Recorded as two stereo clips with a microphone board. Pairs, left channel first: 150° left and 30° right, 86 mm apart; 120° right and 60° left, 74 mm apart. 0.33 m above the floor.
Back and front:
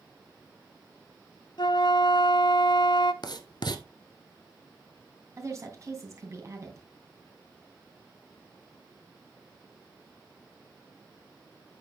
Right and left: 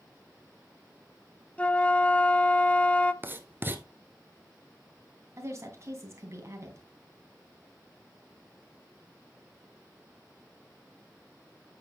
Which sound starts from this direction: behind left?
Writing, at 3.2 s.